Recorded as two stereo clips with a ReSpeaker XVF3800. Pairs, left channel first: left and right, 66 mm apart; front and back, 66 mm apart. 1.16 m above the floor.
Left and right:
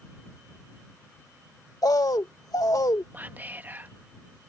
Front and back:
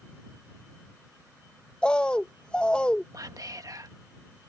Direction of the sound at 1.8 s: 75° left.